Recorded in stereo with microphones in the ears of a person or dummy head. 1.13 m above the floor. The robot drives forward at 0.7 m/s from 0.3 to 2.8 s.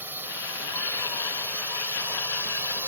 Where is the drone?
5° right (ahead or behind).